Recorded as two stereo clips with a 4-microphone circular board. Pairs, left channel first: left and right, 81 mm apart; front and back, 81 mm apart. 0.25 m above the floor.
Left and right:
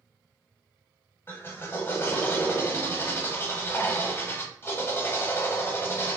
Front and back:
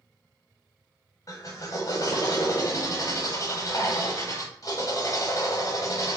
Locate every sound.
1.3 s a drill: 35° left, 1.1 m